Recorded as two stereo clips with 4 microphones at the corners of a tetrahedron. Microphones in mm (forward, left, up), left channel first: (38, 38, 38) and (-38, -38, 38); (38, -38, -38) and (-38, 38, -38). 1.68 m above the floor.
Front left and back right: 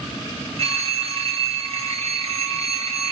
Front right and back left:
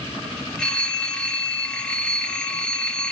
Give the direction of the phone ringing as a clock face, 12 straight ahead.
4 o'clock.